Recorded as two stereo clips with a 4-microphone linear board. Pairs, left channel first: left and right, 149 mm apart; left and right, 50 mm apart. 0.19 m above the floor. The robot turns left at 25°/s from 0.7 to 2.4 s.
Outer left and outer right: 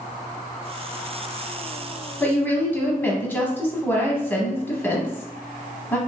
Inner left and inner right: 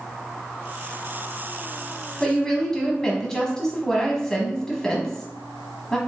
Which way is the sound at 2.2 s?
15° left (ahead or behind).